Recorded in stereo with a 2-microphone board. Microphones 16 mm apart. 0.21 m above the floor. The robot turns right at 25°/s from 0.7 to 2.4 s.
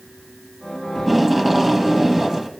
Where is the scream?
I don't hear a scream.